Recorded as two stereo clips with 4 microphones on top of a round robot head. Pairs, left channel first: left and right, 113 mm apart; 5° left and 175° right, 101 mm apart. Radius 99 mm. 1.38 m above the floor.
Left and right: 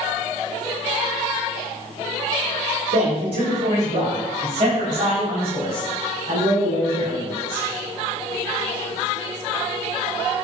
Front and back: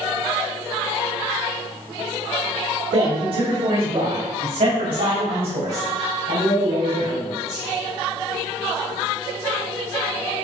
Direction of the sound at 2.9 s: 135° right.